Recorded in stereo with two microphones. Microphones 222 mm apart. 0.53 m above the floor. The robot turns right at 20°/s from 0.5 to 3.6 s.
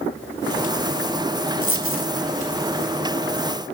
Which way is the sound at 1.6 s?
75° right (ahead or behind).